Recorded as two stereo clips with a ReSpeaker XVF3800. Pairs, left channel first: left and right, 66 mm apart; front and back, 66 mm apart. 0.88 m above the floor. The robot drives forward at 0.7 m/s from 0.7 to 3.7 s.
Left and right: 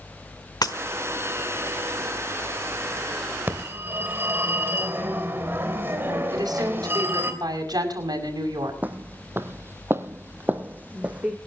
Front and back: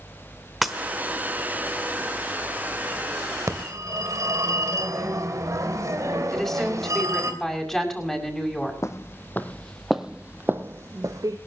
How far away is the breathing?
No breathing in this recording.